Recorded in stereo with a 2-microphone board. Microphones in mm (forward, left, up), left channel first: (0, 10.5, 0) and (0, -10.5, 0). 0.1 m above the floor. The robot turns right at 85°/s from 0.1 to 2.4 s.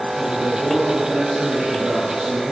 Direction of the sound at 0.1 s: 45° left.